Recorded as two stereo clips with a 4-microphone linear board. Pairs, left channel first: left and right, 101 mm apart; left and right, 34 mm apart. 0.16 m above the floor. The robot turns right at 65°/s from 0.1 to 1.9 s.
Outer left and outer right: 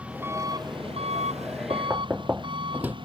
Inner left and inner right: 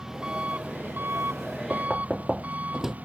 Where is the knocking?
30° right (ahead or behind); by 3.0 s 15° right (ahead or behind).